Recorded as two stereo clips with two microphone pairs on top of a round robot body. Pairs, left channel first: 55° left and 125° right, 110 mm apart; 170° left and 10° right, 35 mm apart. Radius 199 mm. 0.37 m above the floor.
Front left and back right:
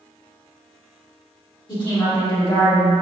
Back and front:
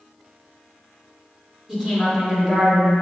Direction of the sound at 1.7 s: 60° left.